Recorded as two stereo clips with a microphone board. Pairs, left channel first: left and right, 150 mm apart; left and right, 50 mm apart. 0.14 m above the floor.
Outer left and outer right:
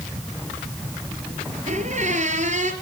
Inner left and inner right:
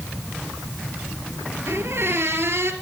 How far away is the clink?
No clink in this recording.